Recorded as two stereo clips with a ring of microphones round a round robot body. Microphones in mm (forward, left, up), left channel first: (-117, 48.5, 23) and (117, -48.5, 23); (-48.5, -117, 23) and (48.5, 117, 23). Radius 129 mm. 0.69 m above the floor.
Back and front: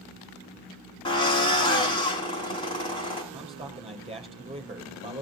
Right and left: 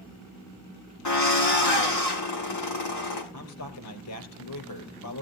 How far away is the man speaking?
About 4 m.